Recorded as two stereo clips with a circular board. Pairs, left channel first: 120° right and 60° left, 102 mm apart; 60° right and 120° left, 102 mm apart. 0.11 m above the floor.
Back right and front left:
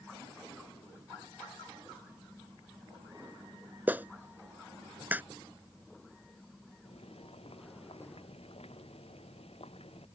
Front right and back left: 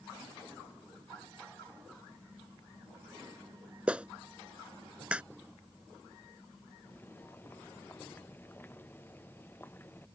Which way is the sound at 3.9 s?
70° left.